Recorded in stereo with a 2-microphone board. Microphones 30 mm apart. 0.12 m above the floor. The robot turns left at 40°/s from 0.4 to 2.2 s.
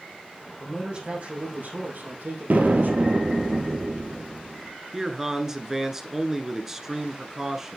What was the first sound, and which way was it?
A man speaking, 20° right.